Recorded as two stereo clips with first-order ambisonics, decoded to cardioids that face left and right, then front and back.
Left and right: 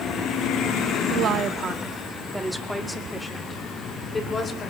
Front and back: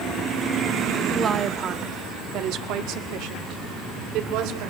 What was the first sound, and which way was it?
A woman speaking, 110° right.